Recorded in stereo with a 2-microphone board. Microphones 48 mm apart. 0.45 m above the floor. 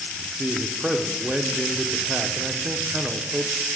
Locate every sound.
0.4 s a man speaking: 15° right (ahead or behind), 0.7 m